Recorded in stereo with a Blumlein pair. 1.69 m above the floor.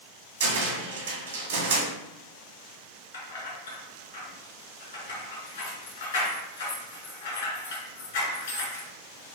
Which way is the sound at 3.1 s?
65° left.